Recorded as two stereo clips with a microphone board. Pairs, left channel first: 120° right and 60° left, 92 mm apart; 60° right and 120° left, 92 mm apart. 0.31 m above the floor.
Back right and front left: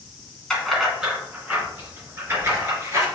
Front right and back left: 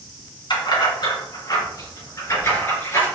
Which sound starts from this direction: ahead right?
Keys jangling, at 0.5 s.